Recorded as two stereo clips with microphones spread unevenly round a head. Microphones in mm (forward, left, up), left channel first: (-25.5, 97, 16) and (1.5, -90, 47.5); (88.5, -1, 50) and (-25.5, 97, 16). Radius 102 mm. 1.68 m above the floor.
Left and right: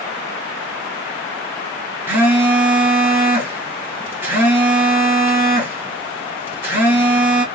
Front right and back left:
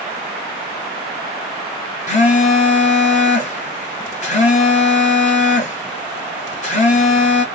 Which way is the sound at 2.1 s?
Straight ahead.